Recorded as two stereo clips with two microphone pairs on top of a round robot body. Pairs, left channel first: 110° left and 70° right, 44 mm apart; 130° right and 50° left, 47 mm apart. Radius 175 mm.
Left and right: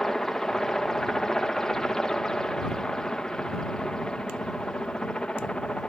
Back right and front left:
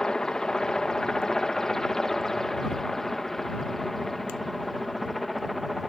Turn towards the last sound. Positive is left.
turn(degrees=140)